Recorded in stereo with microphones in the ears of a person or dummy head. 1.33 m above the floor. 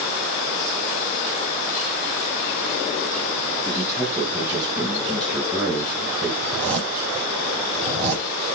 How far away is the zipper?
About 10 m.